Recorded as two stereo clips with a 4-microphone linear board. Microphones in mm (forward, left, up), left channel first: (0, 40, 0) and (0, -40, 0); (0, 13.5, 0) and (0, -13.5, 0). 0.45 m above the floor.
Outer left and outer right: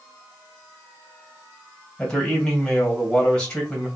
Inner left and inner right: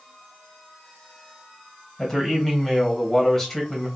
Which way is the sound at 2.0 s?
10° left (ahead or behind).